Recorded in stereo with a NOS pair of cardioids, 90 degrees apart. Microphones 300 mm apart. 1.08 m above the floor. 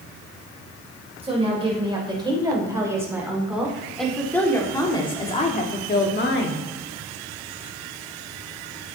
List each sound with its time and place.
1.2 s a woman speaking: 20° right, 4 m; by 6.7 s 45° left, 1.8 m